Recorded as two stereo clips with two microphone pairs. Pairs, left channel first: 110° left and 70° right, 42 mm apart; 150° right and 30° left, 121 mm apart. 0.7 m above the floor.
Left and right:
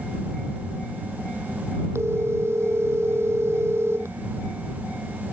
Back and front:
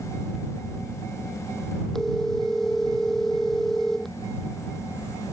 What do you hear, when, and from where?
1.9 s a phone ringing: 65° right